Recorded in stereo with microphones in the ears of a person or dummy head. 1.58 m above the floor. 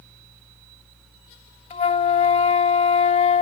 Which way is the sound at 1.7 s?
35° left (ahead or behind).